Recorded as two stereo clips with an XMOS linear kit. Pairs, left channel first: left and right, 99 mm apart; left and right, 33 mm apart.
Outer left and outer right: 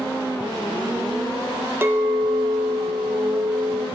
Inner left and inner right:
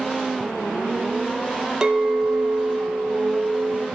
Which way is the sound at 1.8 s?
20° right (ahead or behind).